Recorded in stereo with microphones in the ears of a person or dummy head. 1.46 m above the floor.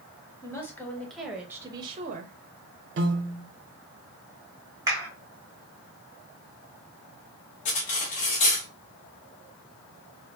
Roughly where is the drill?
I don't hear a drill.